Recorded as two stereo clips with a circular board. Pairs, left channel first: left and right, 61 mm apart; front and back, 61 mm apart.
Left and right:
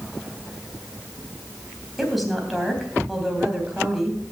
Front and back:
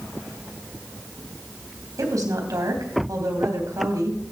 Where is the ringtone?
I don't hear a ringtone.